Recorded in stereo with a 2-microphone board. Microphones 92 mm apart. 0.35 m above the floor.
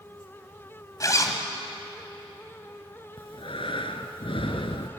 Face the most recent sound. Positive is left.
turn(degrees=75)  # may be behind; listen again after turning